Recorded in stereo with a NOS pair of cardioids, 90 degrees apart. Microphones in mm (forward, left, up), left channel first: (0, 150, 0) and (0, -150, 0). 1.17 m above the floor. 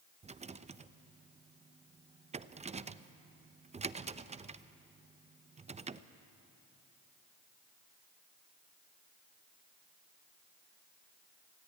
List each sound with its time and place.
0.2 s a rattle: 20° right, 0.7 m